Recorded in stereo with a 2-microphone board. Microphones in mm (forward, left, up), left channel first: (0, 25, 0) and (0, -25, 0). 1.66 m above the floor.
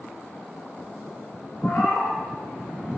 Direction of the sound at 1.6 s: 45° left (ahead or behind).